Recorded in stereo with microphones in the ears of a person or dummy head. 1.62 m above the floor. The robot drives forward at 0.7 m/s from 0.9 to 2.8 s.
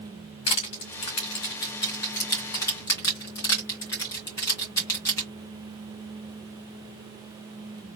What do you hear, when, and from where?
0.5 s crushing: 25° left (ahead or behind), 1.6 m; by 5.3 s 15° left (ahead or behind), 2 m